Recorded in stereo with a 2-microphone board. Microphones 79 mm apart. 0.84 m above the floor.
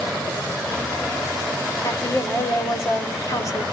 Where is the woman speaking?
40° left (ahead or behind), 2.5 m.